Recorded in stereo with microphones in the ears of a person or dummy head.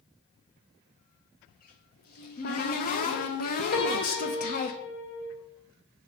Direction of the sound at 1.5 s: 40° left (ahead or behind).